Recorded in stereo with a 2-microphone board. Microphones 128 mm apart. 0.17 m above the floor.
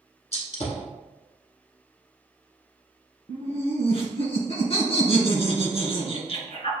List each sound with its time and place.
0.3 s a gunshot: 55° left (ahead or behind), 0.9 m
3.3 s laughter: 50° left (ahead or behind), 1.8 m